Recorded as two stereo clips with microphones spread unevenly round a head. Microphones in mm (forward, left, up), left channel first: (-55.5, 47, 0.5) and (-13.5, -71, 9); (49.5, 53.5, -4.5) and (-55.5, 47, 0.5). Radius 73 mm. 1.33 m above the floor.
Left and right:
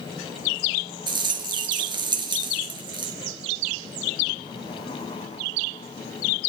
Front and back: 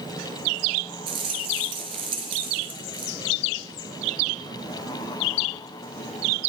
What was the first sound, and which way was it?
A rattle, 120° right.